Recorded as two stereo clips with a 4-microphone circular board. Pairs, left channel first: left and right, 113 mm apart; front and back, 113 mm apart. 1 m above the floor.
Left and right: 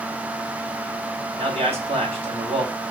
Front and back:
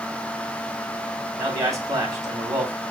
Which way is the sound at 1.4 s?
120° right.